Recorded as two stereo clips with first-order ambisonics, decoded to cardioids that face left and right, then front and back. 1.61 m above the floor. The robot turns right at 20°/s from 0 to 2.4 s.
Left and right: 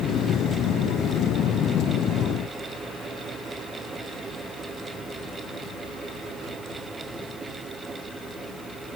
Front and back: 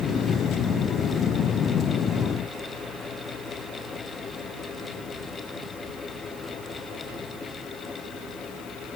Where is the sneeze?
No sneeze in this recording.